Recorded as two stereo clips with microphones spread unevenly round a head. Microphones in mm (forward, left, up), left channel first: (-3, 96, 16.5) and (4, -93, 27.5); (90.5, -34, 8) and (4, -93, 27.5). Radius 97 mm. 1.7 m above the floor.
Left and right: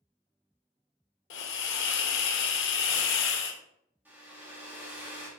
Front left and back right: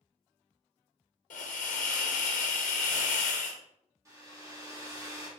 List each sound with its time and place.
1.3 s a hiss: 60° left, 0.6 m
4.0 s a hair dryer: 160° right, 1.3 m